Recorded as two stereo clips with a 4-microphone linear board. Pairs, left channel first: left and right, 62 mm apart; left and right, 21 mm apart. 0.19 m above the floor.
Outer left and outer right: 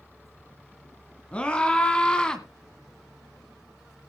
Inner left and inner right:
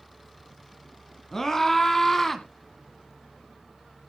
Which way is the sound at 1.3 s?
20° left (ahead or behind).